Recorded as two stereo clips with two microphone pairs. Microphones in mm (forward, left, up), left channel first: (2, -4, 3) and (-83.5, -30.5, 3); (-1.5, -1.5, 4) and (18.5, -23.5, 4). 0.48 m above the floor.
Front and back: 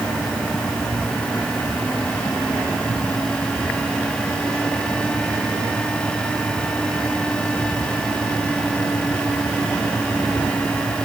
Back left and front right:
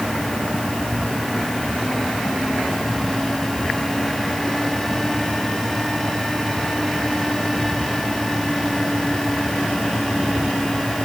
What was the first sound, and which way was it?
Only background noise.